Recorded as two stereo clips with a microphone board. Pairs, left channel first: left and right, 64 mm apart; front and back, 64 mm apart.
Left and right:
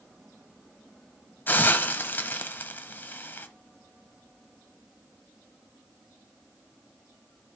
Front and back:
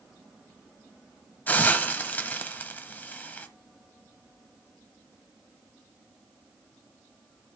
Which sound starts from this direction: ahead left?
A hiss, at 1.5 s.